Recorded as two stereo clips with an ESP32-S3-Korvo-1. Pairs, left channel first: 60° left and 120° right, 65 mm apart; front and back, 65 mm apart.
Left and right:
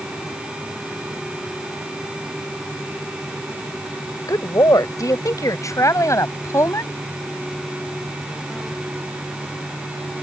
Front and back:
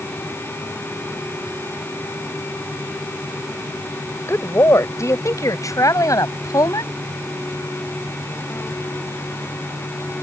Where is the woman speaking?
45° left; by 7.0 s 20° left.